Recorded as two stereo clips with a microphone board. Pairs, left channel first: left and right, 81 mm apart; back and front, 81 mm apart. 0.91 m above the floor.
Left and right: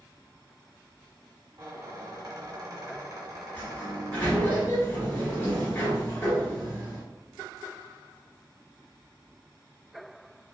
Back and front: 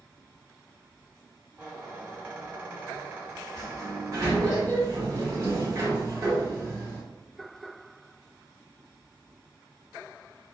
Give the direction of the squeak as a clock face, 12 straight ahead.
2 o'clock.